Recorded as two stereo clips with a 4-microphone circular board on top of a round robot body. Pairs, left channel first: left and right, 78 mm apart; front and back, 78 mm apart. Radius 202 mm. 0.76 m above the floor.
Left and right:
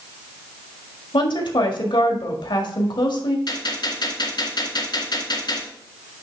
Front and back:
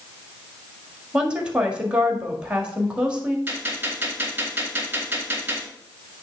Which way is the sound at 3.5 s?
115° left.